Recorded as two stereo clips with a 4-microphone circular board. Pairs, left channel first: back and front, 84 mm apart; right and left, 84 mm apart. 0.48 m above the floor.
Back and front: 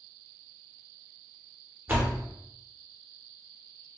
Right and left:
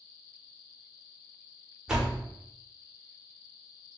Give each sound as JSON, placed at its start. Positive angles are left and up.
{"t": 1.9, "sound": "a door slam", "azimuth_deg": 20, "distance_m": 0.8}